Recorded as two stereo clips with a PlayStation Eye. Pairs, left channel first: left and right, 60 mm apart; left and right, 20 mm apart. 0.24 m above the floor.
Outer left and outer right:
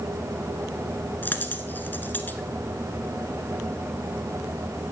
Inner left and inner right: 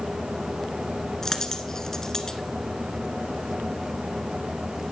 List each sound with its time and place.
1.2 s a dropped coin: 30° left (ahead or behind), 1.3 m